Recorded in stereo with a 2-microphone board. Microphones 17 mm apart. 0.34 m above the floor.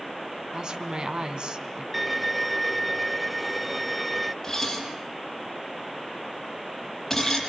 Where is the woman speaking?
55° right (ahead or behind), 2.5 m.